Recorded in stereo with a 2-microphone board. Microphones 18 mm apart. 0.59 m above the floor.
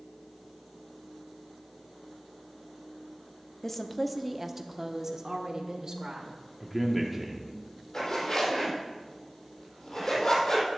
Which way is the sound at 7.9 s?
50° left (ahead or behind).